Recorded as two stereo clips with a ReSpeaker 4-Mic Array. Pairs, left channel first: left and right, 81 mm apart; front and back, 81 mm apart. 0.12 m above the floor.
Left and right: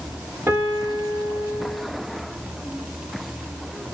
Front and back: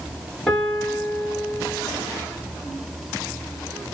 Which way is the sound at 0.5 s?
80° right.